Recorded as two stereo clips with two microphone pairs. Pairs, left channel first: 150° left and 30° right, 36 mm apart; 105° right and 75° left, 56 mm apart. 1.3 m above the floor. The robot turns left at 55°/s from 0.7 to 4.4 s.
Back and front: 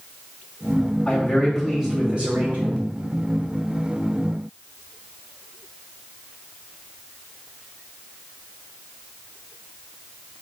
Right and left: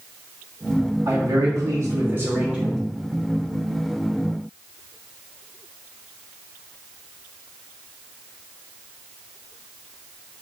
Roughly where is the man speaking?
Left.